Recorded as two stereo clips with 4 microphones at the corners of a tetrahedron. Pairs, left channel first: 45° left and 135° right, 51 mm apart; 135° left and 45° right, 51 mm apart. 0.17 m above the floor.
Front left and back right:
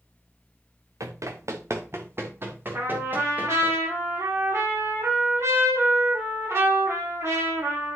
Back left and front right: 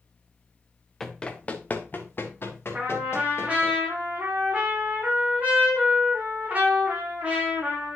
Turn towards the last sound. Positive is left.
turn(degrees=-105)